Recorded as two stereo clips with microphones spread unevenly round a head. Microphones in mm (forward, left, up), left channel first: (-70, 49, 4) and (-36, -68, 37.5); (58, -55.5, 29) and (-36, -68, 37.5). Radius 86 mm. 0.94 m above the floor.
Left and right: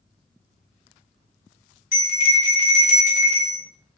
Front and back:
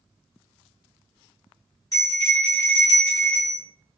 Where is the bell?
75° left, 0.8 m.